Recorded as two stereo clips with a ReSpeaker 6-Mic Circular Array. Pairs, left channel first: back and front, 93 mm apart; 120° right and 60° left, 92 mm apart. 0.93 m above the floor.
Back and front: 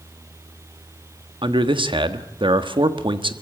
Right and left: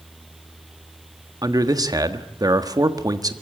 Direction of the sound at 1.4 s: 15° left.